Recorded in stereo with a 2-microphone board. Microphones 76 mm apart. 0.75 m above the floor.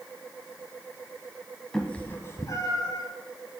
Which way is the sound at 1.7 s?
5° left (ahead or behind).